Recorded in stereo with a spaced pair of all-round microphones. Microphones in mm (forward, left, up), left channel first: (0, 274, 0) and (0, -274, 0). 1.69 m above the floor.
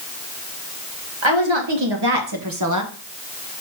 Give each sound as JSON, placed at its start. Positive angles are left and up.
{"t": 1.2, "sound": "a woman speaking", "side_deg": -55, "distance_m": 2.0}